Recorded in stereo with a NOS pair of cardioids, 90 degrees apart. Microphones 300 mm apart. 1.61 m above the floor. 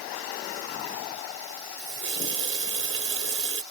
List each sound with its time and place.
1.8 s a running tap: 45° right